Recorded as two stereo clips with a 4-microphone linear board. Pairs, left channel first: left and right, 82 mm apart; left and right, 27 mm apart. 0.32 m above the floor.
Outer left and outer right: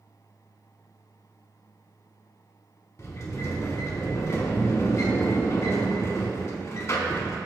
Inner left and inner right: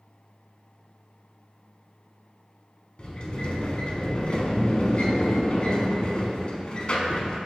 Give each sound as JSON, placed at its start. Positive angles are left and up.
{"t": 3.0, "sound": "a sliding door", "side_deg": 40, "distance_m": 0.6}